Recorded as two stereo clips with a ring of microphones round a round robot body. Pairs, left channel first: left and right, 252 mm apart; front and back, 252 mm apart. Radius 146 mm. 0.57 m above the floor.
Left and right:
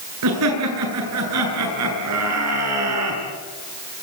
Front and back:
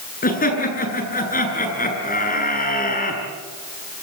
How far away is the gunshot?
I don't hear a gunshot.